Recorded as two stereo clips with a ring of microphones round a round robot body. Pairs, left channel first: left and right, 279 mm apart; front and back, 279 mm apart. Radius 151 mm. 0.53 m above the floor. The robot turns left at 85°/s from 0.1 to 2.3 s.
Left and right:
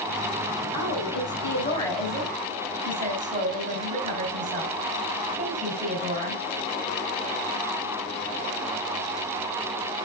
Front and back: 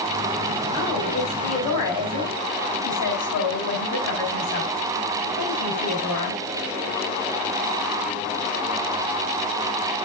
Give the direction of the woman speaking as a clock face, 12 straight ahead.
8 o'clock.